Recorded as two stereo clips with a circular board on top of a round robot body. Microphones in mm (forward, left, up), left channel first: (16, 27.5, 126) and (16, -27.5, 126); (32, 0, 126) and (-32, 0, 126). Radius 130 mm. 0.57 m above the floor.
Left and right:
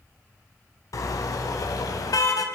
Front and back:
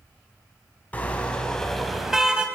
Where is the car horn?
70° left, 2.5 m; by 2.5 s 105° left, 2 m.